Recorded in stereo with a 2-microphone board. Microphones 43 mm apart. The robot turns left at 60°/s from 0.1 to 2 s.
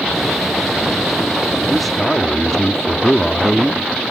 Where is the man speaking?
10° right (ahead or behind); by 4.0 s 10° left (ahead or behind).